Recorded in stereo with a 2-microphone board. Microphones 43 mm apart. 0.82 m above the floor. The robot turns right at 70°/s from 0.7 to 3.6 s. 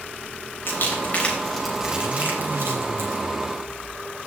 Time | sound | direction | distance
0.7 | crumpling | 65° left (ahead or behind) | 3.5 m